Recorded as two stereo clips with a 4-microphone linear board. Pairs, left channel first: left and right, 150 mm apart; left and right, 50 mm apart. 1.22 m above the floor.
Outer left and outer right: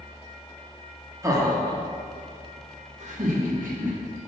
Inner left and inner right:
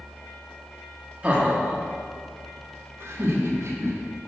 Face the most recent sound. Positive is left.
turn(degrees=-65)  # may be behind; listen again after turning